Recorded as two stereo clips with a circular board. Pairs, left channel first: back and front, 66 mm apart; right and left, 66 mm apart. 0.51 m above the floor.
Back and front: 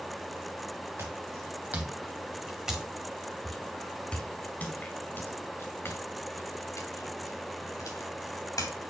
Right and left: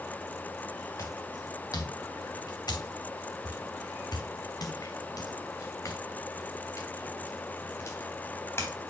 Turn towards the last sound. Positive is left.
turn(degrees=-150)